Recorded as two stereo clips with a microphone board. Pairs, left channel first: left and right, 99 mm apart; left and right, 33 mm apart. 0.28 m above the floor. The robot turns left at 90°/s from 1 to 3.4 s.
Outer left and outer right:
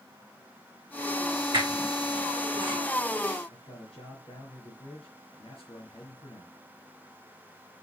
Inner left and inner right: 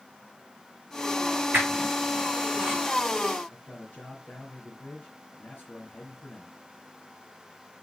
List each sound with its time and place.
1.5 s a squeak: 60° right (ahead or behind), 4.5 m; by 2.8 s 5° right (ahead or behind), 4.5 m
3.5 s a man speaking: 65° left (ahead or behind), 5 m